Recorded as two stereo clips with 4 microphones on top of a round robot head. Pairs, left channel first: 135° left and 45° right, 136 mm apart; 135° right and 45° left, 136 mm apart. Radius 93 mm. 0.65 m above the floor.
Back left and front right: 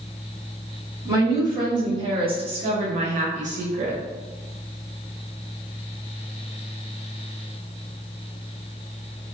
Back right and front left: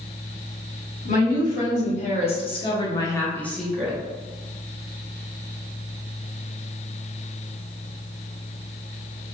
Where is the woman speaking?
110° right, 1.8 m; by 4.0 s 30° right, 0.9 m.